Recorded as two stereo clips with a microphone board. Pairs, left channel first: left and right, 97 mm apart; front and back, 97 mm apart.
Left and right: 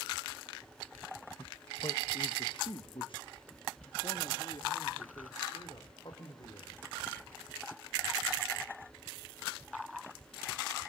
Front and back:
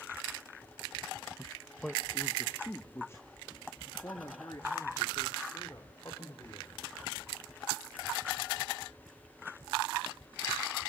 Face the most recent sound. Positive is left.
turn(degrees=50)